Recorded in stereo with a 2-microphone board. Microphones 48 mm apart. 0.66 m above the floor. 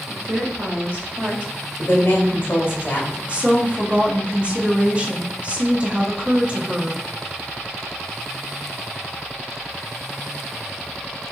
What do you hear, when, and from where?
0.1 s a woman speaking: 40° right (ahead or behind), 0.8 m; by 1.5 s 20° right (ahead or behind), 1.5 m
1.8 s a woman speaking: 50° left (ahead or behind), 1.1 m
3.3 s a woman speaking: 25° right (ahead or behind), 0.7 m